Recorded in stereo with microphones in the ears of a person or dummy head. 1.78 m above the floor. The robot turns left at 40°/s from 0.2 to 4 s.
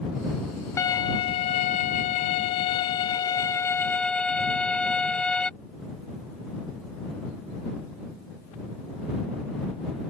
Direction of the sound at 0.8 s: 145° left.